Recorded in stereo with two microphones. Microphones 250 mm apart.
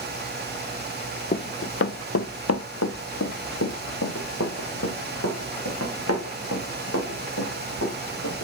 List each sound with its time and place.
1.3 s running footsteps: 35° left (ahead or behind), 0.5 m; by 8.4 s 75° left (ahead or behind), 4 m